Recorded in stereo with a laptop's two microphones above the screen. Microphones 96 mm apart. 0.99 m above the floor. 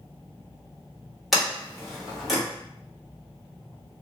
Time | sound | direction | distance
1.3 | a sliding door | centre (ahead or behind) | 1.4 m